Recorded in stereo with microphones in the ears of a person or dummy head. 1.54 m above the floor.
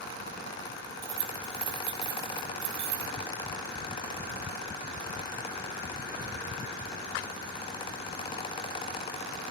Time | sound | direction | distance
1.0 | keys jangling | 70° right (ahead or behind) | 4.5 m